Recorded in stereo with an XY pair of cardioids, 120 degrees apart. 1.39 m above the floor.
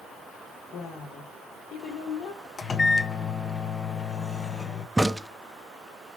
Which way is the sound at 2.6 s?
30° left.